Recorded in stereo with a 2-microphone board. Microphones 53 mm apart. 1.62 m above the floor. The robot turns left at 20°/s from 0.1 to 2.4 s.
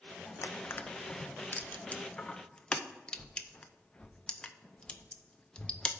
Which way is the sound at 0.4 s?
55° left (ahead or behind).